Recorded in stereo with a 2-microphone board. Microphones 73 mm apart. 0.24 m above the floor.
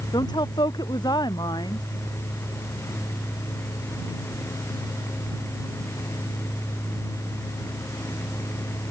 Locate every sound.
0.1 s a woman speaking: 70° left (ahead or behind)